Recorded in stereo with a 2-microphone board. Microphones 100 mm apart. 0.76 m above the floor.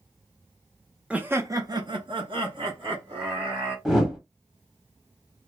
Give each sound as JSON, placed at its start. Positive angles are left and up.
{"t": 1.1, "sound": "laughter", "side_deg": -10, "distance_m": 0.6}
{"t": 3.9, "sound": "a whoosh", "side_deg": -5, "distance_m": 0.8}